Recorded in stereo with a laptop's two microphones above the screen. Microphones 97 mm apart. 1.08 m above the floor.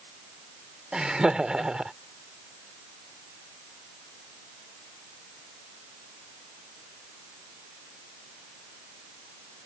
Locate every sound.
0.9 s laughter: 10° right (ahead or behind)